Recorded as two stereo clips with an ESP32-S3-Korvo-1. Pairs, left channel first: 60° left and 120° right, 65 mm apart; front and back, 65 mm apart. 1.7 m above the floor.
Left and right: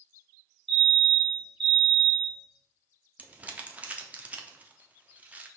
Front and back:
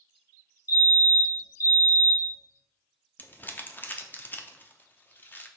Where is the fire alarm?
25° right, 1.8 m.